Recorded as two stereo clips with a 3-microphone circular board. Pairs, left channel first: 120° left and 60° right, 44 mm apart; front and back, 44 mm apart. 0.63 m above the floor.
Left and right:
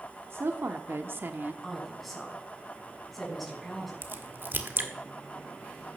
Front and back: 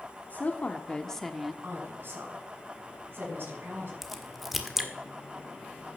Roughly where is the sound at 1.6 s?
Behind right.